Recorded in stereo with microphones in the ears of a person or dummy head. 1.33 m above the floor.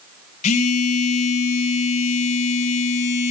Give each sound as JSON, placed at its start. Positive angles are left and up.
{"t": 0.4, "sound": "a phone buzzing", "side_deg": 40, "distance_m": 1.4}